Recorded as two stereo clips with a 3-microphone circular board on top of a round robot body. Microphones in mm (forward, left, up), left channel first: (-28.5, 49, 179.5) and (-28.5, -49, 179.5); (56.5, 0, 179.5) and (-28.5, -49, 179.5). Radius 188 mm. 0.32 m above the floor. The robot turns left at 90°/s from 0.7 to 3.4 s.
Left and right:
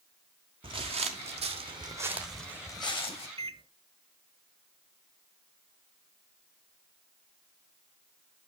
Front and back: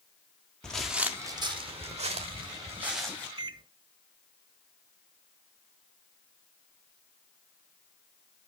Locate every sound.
0.6 s footsteps: 55° right, 0.6 m; by 3.3 s 95° left, 2 m
3.4 s a microwave: 110° right, 1.8 m